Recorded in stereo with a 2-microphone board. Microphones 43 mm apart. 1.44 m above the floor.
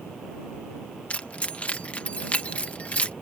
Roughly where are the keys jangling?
Left.